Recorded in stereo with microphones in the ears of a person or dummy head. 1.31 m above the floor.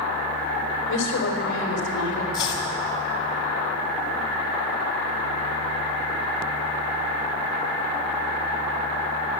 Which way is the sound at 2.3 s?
25° left (ahead or behind).